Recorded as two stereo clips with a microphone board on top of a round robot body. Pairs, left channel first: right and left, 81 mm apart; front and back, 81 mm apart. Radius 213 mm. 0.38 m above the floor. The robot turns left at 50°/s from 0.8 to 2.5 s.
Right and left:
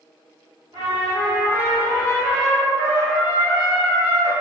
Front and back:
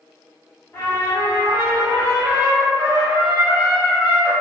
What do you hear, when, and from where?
0.7 s a trumpet: 60° left, 1.2 m; by 4.3 s 25° right, 1.2 m